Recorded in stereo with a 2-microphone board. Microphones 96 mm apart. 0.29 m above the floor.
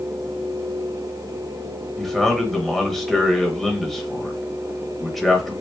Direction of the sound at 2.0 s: Centre (ahead or behind).